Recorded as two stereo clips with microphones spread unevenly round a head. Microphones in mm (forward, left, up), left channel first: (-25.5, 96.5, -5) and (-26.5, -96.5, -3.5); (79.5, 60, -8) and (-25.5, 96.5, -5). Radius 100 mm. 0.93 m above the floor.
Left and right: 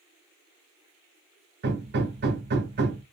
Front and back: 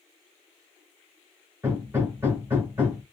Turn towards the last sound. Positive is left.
turn(degrees=-120)